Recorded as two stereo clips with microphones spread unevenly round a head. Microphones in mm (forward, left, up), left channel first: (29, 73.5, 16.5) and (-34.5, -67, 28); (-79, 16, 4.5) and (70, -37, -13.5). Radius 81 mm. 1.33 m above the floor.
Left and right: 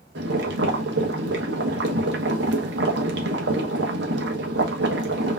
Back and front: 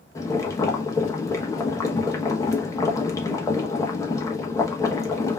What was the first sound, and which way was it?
Boiling, 130° right.